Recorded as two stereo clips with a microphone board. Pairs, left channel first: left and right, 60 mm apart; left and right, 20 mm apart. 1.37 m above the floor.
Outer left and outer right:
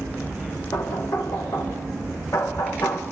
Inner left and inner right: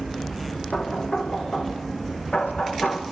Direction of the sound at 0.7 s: 60° left (ahead or behind).